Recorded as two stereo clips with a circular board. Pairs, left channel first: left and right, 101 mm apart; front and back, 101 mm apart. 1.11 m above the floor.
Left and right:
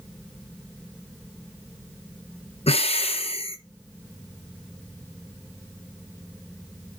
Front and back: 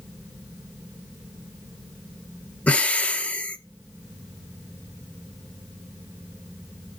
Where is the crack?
I don't hear a crack.